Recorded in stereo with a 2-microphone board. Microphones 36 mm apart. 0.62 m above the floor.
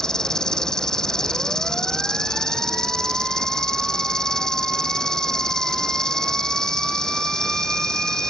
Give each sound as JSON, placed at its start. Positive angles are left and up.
{"t": 0.0, "sound": "an insect", "side_deg": 20}